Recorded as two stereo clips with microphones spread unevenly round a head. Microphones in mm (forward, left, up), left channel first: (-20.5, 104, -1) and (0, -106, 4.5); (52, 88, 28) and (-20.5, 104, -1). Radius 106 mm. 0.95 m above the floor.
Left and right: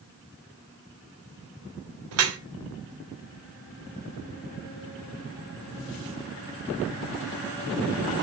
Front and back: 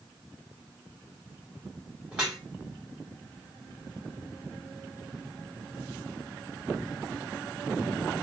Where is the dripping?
110° right, 0.6 m.